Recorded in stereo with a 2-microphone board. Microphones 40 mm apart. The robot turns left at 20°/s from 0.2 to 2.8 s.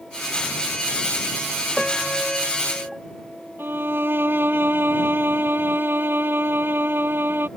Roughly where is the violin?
Right.